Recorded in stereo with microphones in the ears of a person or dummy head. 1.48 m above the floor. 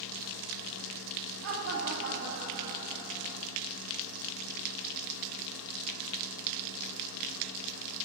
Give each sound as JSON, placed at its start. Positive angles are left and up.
{"t": 1.4, "sound": "laughter", "side_deg": -80, "distance_m": 0.7}